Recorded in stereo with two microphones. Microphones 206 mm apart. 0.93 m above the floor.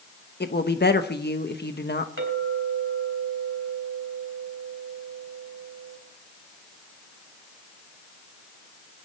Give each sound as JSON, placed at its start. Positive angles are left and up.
{"t": 0.4, "sound": "a woman speaking", "side_deg": 55, "distance_m": 1.1}
{"t": 2.2, "sound": "a clink", "side_deg": -80, "distance_m": 3.5}